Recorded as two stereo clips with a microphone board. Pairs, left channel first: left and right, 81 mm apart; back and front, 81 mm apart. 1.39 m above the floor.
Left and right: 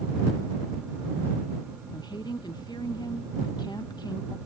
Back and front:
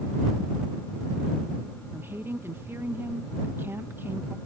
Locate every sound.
1.9 s a woman speaking: 60° left